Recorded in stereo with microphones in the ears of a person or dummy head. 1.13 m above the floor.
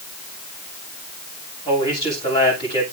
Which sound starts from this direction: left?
A man speaking, at 1.6 s.